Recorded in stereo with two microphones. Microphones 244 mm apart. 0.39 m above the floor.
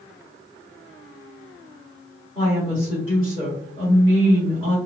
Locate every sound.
2.4 s a woman speaking: 20° left (ahead or behind), 1.7 m